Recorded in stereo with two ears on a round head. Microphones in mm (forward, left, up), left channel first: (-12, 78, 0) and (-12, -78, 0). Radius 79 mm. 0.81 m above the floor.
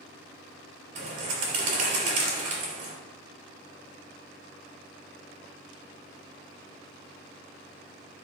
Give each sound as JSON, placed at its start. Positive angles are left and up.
{"t": 0.9, "sound": "a bird", "side_deg": -45, "distance_m": 3.5}